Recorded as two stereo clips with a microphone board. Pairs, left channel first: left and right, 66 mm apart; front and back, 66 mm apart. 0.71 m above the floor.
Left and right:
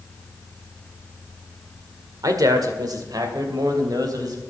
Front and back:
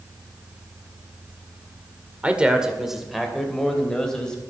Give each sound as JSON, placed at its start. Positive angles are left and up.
{"t": 2.2, "sound": "a man speaking", "azimuth_deg": -110, "distance_m": 2.0}